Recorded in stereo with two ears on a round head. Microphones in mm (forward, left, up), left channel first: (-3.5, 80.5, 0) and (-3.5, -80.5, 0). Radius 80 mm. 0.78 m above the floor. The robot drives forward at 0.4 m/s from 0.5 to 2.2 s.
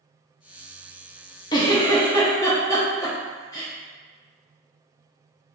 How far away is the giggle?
About 0.5 m.